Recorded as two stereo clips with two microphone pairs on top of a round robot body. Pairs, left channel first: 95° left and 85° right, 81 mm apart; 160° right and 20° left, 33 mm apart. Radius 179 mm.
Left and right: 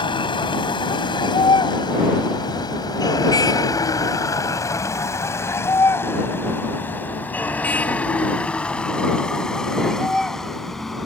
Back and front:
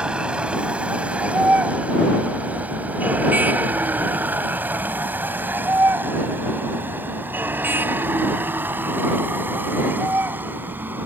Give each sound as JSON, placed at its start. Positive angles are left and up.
{"t": 0.0, "sound": "a vehicle", "azimuth_deg": 80}